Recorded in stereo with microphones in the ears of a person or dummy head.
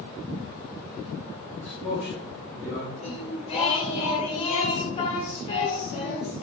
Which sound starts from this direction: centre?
A man speaking, at 1.6 s.